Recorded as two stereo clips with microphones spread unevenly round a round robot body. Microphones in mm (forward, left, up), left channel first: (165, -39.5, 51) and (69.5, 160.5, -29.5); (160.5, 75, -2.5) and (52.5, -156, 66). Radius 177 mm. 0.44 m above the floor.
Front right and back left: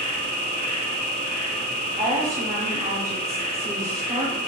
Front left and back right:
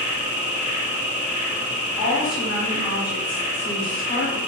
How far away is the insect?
About 1.2 m.